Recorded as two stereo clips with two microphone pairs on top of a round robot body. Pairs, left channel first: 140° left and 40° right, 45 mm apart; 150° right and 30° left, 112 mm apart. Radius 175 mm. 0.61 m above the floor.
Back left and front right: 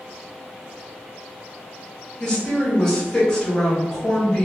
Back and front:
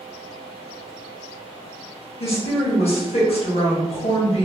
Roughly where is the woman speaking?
Behind right.